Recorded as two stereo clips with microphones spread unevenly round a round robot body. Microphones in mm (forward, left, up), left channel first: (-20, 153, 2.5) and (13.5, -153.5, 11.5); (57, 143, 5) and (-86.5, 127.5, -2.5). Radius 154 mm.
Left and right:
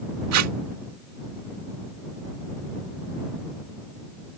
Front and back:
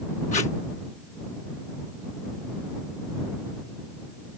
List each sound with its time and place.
0.3 s tape being pulled: 50° right